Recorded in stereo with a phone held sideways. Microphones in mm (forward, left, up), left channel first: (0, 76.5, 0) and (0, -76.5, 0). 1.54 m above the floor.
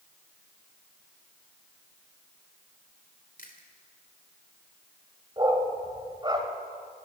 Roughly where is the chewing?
Left.